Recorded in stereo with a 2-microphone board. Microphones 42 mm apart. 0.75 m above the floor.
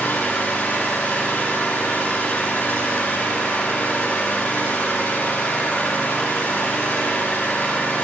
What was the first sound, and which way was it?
An engine running, 60° left (ahead or behind).